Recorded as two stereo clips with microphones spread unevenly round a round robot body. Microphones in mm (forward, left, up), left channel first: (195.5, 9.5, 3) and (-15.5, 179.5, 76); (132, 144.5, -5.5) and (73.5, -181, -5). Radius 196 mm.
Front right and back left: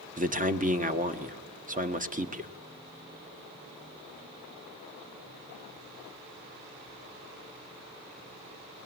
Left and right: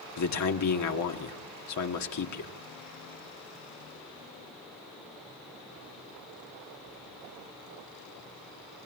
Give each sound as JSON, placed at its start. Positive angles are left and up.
{"t": 0.2, "sound": "a man speaking", "azimuth_deg": 75, "distance_m": 1.5}